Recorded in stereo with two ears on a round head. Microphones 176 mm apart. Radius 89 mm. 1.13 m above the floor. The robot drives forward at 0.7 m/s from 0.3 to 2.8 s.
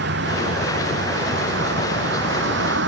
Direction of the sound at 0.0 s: 55° right (ahead or behind).